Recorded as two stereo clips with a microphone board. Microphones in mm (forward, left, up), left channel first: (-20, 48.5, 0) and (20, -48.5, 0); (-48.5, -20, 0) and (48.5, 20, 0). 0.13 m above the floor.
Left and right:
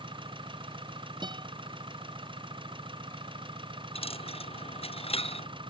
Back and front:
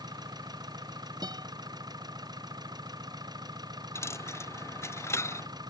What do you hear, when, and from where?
0.0 s an engine running: 30° right
1.2 s a guitar: 25° right
4.0 s a dropped coin: 135° left